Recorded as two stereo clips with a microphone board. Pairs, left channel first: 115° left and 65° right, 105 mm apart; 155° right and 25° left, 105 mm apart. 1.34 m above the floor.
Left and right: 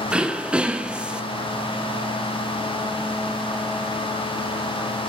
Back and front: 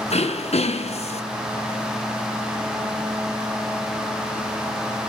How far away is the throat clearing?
About 0.9 m.